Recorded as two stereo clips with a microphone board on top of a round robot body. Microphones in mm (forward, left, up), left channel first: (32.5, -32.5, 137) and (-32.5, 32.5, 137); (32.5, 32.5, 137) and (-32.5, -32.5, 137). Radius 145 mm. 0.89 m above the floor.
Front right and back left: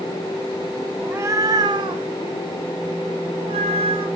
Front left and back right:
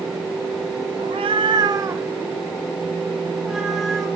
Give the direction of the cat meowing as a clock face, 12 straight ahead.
5 o'clock.